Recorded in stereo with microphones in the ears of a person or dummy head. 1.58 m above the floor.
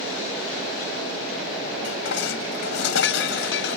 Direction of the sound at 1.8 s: 75° left (ahead or behind).